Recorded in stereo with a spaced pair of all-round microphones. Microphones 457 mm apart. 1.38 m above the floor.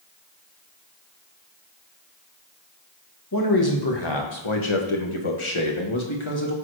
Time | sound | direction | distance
3.3 | a man speaking | 45° left (ahead or behind) | 1.6 m